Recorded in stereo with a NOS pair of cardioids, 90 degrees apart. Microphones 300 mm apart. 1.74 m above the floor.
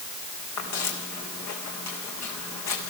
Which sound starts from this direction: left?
Footsteps, at 0.6 s.